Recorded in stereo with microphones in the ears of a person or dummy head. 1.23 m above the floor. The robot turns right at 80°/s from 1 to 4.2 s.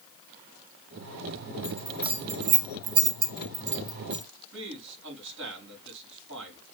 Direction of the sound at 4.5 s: 75° right (ahead or behind).